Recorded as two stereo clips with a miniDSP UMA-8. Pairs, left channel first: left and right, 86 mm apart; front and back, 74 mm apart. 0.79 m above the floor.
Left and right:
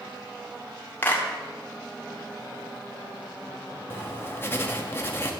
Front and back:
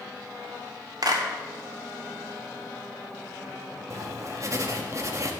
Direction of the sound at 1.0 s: 160° left.